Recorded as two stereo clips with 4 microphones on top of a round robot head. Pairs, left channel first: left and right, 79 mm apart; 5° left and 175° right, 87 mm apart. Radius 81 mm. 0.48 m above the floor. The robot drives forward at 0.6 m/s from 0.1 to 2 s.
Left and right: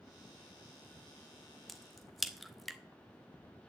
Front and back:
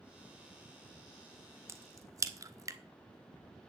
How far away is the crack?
About 1.4 m.